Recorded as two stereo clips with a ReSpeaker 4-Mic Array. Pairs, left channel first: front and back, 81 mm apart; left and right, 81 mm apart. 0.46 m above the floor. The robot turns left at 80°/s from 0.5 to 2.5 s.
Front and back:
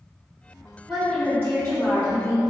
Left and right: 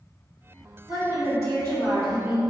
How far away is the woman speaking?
About 1.8 m.